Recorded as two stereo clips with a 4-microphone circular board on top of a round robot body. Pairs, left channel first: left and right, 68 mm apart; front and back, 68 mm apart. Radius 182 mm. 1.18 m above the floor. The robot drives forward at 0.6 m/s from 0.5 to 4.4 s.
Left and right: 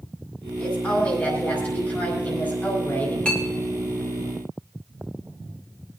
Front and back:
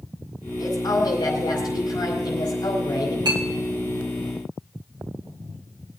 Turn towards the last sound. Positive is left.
turn(degrees=170)